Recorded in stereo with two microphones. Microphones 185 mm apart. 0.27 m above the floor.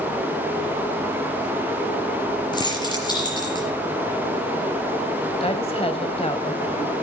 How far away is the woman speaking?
About 1.4 m.